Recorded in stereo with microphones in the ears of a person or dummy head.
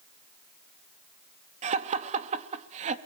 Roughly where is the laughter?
Right.